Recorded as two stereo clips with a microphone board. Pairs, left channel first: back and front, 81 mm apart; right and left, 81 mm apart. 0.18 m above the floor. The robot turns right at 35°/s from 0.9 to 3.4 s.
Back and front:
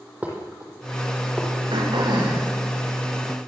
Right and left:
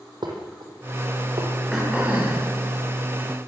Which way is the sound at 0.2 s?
75° left.